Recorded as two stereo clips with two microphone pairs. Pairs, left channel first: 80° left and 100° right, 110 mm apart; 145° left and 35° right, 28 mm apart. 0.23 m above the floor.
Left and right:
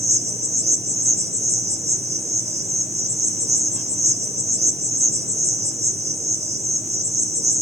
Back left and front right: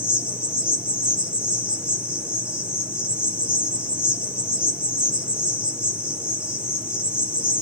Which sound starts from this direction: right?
An insect, at 0.0 s.